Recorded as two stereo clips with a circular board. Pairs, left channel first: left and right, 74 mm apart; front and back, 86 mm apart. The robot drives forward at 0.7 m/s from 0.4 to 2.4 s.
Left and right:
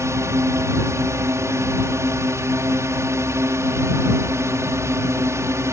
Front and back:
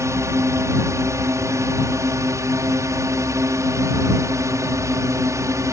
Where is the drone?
130° right.